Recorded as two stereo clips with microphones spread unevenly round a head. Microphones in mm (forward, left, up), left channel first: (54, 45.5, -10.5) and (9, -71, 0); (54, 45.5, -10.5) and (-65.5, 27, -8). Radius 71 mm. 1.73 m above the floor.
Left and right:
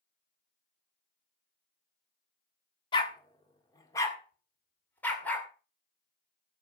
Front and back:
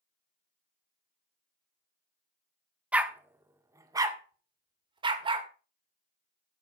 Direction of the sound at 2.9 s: 115° left.